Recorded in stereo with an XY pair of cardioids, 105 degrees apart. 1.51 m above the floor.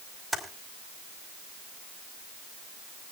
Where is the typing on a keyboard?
15° right, 4.5 m.